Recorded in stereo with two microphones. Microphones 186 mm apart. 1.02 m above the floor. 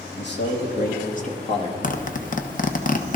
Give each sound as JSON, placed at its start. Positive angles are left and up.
{"t": 0.2, "sound": "a man speaking", "side_deg": 70, "distance_m": 2.5}
{"t": 1.8, "sound": "a zipper", "side_deg": 45, "distance_m": 1.0}